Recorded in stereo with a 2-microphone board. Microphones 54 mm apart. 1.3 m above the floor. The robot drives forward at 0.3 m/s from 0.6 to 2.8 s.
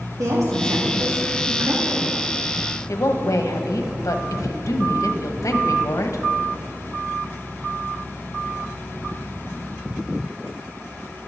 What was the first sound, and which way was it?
A woman speaking, 85° right.